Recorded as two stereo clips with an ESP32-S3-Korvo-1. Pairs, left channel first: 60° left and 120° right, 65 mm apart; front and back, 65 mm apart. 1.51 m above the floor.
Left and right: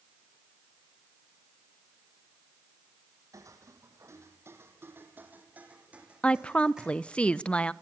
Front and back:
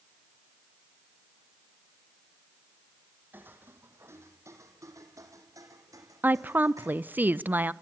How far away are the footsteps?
About 2.5 m.